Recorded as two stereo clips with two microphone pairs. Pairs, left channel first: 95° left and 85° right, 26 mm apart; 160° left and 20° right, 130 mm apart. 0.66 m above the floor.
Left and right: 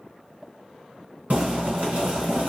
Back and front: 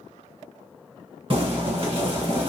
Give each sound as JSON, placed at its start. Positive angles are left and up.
{"t": 1.3, "sound": "boiling", "azimuth_deg": -65, "distance_m": 1.3}